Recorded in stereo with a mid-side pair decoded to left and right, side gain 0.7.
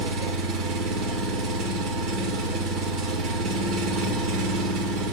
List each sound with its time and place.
0.0 s an engine running: 65° right, 1.8 m